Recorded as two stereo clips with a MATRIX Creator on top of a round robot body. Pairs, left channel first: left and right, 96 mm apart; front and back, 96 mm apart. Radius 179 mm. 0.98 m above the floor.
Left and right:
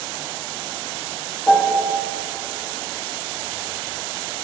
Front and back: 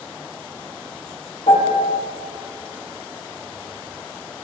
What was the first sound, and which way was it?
A piano, 15° left.